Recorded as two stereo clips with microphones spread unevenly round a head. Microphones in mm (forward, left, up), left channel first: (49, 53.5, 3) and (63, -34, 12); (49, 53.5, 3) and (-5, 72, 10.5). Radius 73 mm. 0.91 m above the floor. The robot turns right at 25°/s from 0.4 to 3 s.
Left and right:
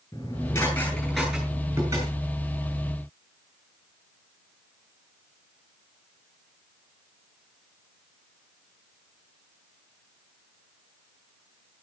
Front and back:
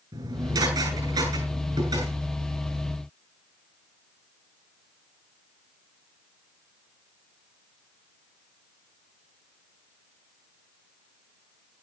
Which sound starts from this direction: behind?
Dishes clattering, at 0.1 s.